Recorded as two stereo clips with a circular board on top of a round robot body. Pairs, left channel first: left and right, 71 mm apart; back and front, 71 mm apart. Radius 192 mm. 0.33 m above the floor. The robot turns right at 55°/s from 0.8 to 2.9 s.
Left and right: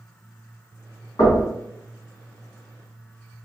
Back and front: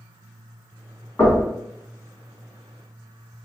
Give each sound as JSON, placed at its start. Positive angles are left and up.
{"t": 1.2, "sound": "knocking", "azimuth_deg": 120, "distance_m": 1.7}